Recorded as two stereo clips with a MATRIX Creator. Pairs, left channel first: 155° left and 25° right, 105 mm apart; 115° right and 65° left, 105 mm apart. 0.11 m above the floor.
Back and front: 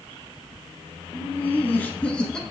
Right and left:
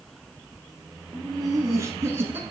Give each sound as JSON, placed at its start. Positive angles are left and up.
{"t": 1.1, "sound": "laughter", "azimuth_deg": 100, "distance_m": 1.6}